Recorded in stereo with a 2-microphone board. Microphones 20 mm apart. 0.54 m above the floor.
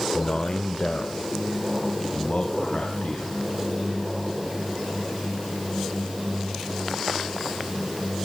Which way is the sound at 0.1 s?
40° left (ahead or behind).